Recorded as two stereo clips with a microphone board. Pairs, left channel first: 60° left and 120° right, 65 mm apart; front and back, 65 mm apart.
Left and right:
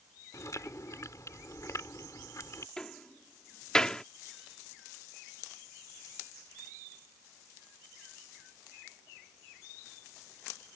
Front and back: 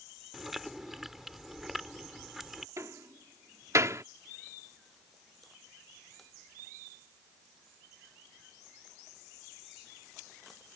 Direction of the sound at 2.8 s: 140° left.